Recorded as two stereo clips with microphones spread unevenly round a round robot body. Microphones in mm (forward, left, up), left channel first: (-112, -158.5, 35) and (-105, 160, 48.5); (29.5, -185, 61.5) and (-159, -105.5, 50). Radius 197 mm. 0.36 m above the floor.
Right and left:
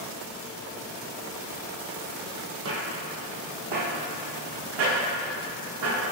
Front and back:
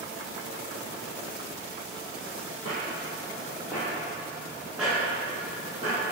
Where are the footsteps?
45° left, 0.6 m; by 6.0 s 80° left, 2.5 m.